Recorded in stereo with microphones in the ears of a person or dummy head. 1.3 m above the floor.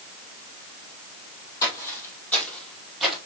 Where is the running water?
I don't hear running water.